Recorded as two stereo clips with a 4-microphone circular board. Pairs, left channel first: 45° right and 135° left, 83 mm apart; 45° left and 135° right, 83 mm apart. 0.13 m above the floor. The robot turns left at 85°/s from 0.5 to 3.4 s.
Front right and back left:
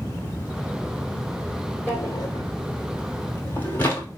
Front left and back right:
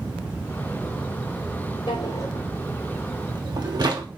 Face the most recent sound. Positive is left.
turn(degrees=-105)